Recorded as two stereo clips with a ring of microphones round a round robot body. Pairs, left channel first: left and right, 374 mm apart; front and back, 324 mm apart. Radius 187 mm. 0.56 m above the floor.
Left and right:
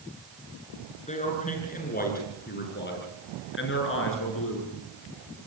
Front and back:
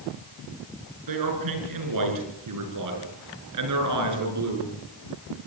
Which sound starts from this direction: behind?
A man speaking, at 1.1 s.